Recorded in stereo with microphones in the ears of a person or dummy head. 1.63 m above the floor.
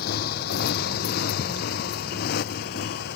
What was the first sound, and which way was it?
A motorcycle, 50° left (ahead or behind).